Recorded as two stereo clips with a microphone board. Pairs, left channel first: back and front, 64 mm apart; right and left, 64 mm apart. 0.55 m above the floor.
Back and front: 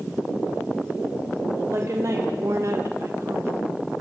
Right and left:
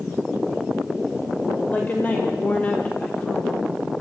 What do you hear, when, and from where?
1.7 s a woman speaking: 30° right, 2 m; by 3.5 s 15° right, 1.1 m